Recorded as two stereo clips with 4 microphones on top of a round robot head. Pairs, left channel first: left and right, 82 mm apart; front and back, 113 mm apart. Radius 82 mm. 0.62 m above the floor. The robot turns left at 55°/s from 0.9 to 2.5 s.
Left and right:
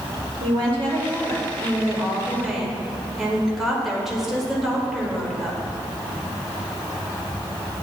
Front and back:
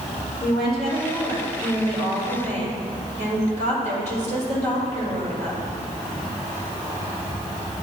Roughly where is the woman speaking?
Right.